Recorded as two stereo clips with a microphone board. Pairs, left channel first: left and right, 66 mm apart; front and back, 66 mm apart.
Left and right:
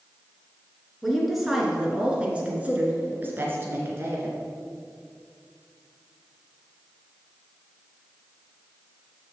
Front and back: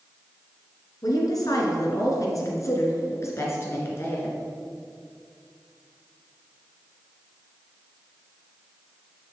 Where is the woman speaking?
Straight ahead, 2.5 m; by 4.4 s 50° right, 2.5 m.